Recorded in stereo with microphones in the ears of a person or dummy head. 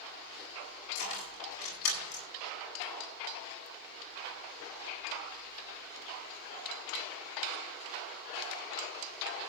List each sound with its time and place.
0.9 s keys jangling: 75° left (ahead or behind), 8.5 m; by 2.2 s 80° left, 8.5 m